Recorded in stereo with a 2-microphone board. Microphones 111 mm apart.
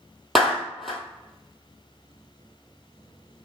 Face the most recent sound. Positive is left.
turn(degrees=0)  # may be behind; listen again after turning